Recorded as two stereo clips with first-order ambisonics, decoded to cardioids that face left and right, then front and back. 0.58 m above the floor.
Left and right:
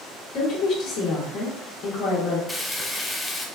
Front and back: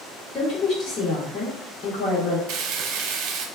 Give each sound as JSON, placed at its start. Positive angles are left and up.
{"t": 0.3, "sound": "a woman speaking", "azimuth_deg": 45, "distance_m": 1.0}
{"t": 2.5, "sound": "frying", "azimuth_deg": 175, "distance_m": 0.6}